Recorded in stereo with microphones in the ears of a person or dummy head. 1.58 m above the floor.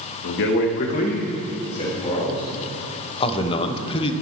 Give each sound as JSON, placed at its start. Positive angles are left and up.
{"t": 0.2, "sound": "a man speaking", "side_deg": 65, "distance_m": 0.9}
{"t": 3.2, "sound": "a man speaking", "side_deg": 30, "distance_m": 0.8}